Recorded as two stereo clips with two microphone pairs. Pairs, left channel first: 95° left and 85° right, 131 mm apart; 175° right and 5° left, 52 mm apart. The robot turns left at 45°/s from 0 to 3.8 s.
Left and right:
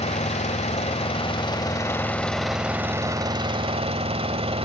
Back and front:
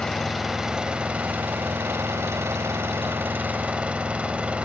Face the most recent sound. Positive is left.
turn(degrees=-60)